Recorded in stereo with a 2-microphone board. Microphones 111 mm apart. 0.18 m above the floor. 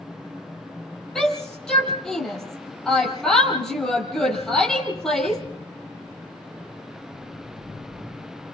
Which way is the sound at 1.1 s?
5° left (ahead or behind).